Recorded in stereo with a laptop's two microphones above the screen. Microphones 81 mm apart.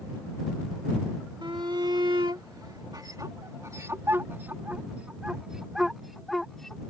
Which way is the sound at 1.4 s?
75° right (ahead or behind).